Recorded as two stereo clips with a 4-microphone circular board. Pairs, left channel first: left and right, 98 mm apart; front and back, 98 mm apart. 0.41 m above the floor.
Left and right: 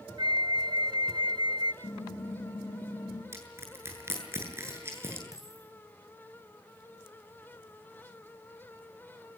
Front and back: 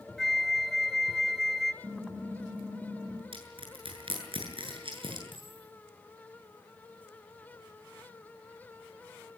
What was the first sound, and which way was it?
A flute, 90° right.